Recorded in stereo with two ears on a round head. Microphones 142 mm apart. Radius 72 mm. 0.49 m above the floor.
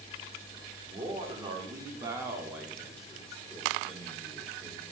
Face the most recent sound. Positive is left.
turn(degrees=15)  # may be behind; listen again after turning